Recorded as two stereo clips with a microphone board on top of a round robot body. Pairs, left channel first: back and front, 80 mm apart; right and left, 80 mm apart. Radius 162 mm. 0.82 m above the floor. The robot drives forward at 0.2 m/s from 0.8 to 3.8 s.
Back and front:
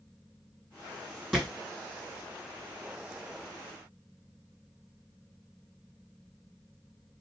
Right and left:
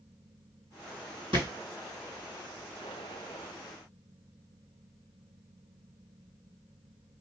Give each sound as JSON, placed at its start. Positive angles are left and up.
{"t": 1.3, "sound": "a thud", "azimuth_deg": 90, "distance_m": 2.0}